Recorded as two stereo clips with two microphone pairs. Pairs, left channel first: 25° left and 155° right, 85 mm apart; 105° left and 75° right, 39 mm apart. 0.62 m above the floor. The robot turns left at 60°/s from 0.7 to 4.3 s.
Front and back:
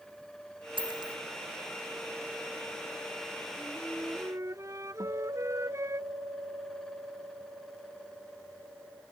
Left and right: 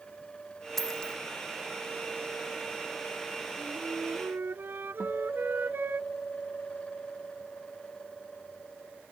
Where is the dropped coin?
170° right; by 1.2 s 165° left.